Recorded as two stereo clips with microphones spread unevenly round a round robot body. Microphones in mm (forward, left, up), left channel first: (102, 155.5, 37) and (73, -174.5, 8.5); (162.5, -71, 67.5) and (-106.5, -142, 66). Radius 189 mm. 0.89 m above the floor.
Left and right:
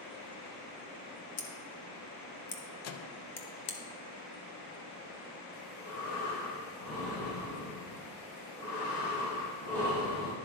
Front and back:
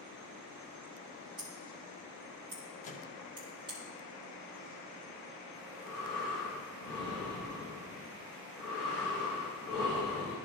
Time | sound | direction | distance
1.4 | scissors | 120° left | 0.5 m
2.8 | a microwave | 65° left | 0.5 m
5.5 | breathing | 75° left | 2.5 m